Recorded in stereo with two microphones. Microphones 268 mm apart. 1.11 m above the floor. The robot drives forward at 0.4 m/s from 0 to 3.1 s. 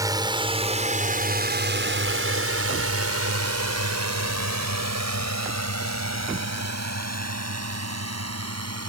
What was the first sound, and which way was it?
A drone, 15° right (ahead or behind).